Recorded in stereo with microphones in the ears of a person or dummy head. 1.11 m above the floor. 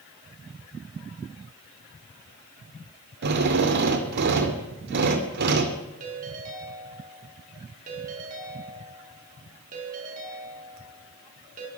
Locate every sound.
3.2 s a drill: 60° right (ahead or behind), 2.5 m
6.0 s a ringtone: 45° right (ahead or behind), 6.5 m